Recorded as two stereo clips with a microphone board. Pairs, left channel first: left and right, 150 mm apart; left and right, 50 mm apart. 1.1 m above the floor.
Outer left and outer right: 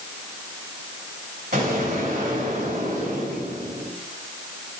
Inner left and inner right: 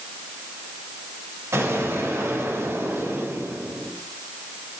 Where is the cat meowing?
No cat meowing in this recording.